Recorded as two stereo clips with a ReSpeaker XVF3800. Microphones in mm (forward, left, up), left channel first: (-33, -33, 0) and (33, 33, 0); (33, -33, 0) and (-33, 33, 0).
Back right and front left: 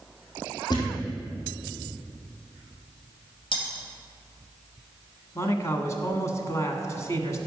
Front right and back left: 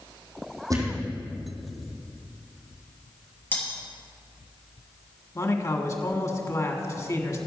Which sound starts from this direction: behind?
A thud, at 0.7 s.